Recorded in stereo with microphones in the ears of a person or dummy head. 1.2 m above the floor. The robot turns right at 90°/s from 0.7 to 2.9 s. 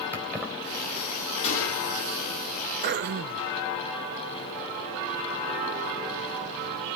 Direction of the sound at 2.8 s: 55° right (ahead or behind).